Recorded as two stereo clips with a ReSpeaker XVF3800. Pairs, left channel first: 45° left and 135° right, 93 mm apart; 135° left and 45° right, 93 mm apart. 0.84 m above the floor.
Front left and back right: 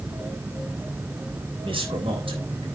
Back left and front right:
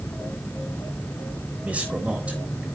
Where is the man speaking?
120° right, 3.5 m.